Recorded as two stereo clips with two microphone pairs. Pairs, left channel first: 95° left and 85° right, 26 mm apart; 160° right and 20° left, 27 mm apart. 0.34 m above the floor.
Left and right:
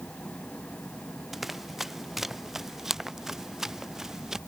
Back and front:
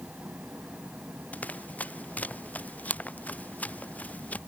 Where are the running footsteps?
170° right; by 4.4 s 155° right.